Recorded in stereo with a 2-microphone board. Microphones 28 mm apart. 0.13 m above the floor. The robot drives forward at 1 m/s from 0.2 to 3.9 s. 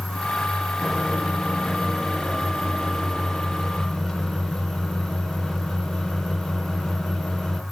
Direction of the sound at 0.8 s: 5° left (ahead or behind).